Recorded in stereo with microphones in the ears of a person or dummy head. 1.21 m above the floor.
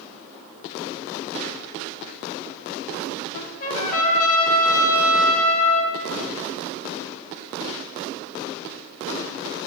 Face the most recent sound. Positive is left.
turn(degrees=45)  # may be behind; listen again after turning